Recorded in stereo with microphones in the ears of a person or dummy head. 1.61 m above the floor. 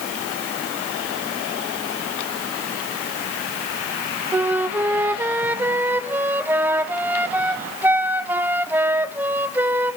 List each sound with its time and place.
4.3 s a flute: 10° right (ahead or behind), 0.7 m